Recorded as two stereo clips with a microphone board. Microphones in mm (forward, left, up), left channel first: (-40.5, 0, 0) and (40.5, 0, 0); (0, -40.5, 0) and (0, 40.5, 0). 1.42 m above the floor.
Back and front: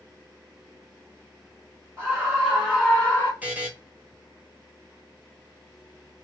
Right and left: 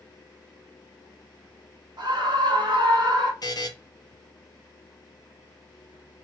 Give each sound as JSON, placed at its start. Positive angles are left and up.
{"t": 2.0, "sound": "a scream", "azimuth_deg": 60, "distance_m": 1.4}
{"t": 3.4, "sound": "a buzzer", "azimuth_deg": -70, "distance_m": 1.1}